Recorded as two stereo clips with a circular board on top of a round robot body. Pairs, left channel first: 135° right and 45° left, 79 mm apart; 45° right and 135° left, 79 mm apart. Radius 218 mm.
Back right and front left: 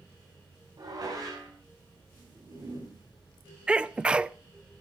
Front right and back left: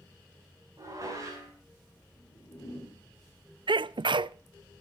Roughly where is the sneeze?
Behind left.